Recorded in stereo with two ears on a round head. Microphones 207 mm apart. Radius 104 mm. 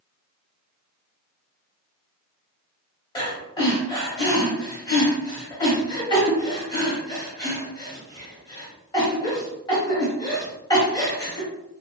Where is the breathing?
20° left (ahead or behind), 1.4 m.